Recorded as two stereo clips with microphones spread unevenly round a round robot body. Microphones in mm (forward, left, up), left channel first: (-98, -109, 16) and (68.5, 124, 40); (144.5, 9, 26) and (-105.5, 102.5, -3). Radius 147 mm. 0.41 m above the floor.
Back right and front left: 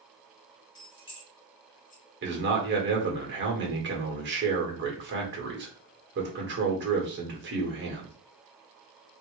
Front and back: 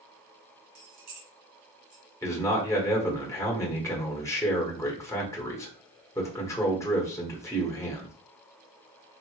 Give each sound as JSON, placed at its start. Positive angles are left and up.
{"t": 0.8, "sound": "keys jangling", "azimuth_deg": 160, "distance_m": 1.9}
{"t": 2.2, "sound": "a man speaking", "azimuth_deg": 60, "distance_m": 1.3}